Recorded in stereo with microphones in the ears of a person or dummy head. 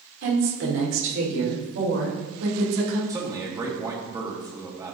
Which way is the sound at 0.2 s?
75° right (ahead or behind).